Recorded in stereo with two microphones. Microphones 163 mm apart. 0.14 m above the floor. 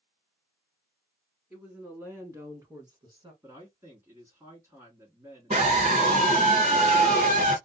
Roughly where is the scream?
Right.